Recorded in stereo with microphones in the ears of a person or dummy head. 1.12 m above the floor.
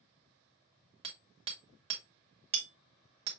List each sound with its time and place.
1.0 s hammering: 30° right (ahead or behind), 1.2 m